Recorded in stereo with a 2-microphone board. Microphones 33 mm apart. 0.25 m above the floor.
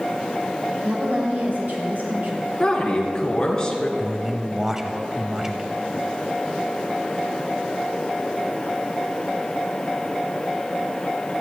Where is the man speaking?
15° right (ahead or behind), 0.9 m.